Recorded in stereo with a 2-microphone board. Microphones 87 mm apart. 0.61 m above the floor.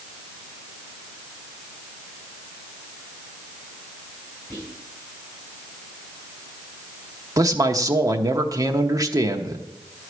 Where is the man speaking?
40° right (ahead or behind), 0.9 m.